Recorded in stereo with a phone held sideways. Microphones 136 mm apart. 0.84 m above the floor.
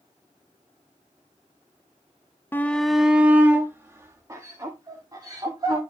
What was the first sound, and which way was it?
A shout, 15° left (ahead or behind).